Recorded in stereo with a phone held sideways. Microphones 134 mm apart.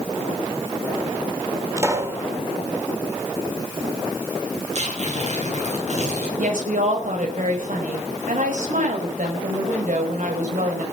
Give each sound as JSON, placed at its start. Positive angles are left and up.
{"t": 1.8, "sound": "a pop", "side_deg": -20, "distance_m": 3.5}
{"t": 4.7, "sound": "tearing paper", "side_deg": -55, "distance_m": 8.5}
{"t": 6.4, "sound": "a woman speaking", "side_deg": -75, "distance_m": 5.0}